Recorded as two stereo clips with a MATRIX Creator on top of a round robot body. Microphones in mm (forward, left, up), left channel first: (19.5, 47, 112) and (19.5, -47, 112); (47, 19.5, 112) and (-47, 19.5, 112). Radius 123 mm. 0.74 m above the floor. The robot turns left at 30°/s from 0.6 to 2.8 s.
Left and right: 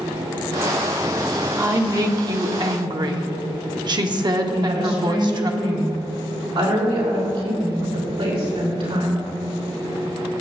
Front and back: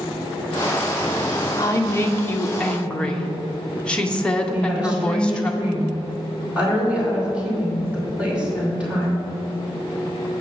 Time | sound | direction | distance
1.6 | a woman speaking | 40° right | 1.3 m
4.5 | a woman speaking | 105° right | 4 m